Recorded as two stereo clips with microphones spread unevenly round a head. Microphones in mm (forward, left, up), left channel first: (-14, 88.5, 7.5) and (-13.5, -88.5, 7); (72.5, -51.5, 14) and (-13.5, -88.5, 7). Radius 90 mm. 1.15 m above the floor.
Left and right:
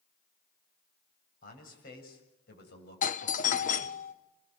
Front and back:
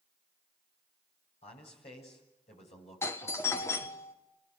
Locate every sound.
1.4 s a man speaking: 45° left, 8 m; by 4.0 s 60° left, 7.5 m
3.0 s a doorbell: 85° left, 1.3 m